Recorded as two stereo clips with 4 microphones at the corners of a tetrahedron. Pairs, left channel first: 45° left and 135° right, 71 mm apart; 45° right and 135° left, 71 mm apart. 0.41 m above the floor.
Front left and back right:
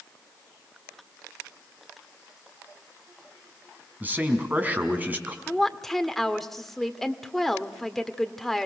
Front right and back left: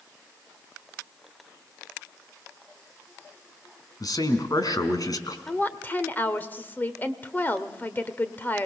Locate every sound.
4.0 s a man speaking: 70° right, 3.5 m
5.5 s a woman speaking: 35° right, 1.3 m